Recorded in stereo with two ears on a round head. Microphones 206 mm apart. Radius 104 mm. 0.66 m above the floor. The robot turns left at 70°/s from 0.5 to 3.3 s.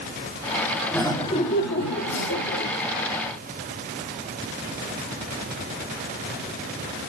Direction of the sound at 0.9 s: 175° left.